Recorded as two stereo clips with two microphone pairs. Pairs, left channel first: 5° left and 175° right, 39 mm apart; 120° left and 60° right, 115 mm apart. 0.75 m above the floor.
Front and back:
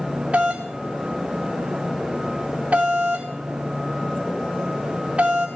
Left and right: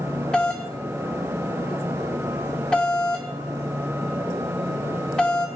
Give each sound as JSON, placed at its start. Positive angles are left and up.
{"t": 0.3, "sound": "a doorbell", "azimuth_deg": -160, "distance_m": 1.6}